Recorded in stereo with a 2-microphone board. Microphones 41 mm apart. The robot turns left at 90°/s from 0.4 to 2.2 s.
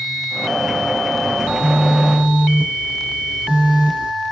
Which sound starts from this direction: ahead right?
A phone buzzing, at 1.4 s.